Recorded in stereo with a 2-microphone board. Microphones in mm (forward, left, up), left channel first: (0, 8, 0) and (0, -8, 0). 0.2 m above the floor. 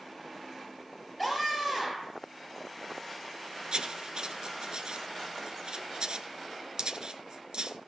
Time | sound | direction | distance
1.2 | a scream | centre (ahead or behind) | 4 m
3.7 | writing | 55° right (ahead or behind) | 1.1 m